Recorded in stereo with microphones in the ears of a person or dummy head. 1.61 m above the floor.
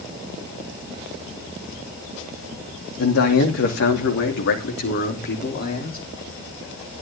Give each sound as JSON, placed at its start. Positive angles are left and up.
{"t": 3.0, "sound": "a man speaking", "side_deg": 75, "distance_m": 2.5}